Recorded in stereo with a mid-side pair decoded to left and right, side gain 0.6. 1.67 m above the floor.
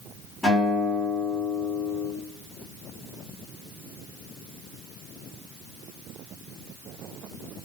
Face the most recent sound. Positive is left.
turn(degrees=5)